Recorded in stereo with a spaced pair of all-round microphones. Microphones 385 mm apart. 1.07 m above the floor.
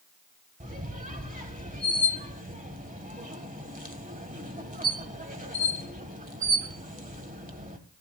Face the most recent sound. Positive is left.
turn(degrees=-20)  # may be behind; listen again after turning